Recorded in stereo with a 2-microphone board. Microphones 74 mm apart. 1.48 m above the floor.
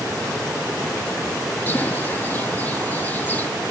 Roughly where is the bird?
Left.